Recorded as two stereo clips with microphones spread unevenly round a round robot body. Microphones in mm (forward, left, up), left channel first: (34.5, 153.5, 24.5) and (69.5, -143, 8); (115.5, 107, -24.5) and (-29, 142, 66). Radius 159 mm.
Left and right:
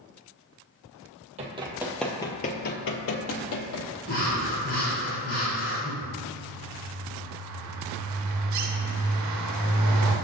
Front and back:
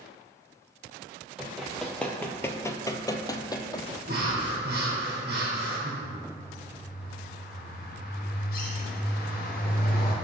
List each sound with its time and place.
1.4 s running footsteps: 150° right, 0.7 m; by 4.0 s 70° left, 1.1 m
4.1 s breathing: 150° left, 2 m
6.0 s a bird: 50° right, 0.8 m